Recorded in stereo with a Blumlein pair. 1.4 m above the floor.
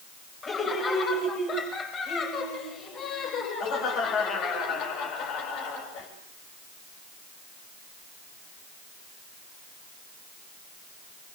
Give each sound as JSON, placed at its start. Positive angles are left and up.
{"t": 0.4, "sound": "laughter", "azimuth_deg": 20, "distance_m": 8.5}